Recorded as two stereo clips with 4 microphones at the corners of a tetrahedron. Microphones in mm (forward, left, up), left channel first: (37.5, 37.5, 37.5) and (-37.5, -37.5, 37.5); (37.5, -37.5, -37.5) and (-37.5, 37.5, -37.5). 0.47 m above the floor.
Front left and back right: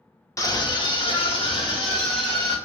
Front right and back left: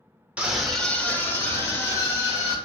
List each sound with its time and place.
0.4 s a scream: 70° left, 0.8 m; by 2.5 s 10° left, 2.5 m